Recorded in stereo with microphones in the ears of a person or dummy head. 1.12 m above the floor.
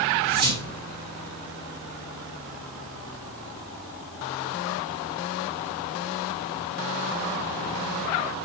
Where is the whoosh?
50° right (ahead or behind), 1.8 m.